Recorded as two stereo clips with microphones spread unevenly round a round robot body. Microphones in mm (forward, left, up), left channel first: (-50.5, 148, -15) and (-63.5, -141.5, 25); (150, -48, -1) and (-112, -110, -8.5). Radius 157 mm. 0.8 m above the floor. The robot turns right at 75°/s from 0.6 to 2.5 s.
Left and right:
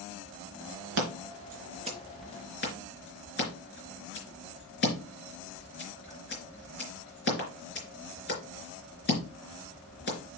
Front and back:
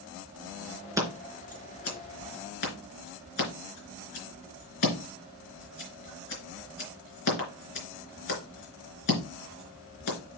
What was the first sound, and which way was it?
Scissors, 90° right.